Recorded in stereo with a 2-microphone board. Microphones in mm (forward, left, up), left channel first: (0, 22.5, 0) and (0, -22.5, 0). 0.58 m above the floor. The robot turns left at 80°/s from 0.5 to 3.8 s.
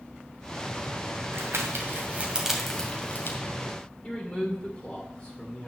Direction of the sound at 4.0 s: 35° left (ahead or behind).